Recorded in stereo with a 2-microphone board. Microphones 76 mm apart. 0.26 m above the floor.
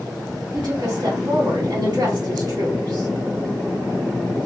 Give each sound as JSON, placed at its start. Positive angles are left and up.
{"t": 0.5, "sound": "a woman speaking", "side_deg": -60, "distance_m": 2.5}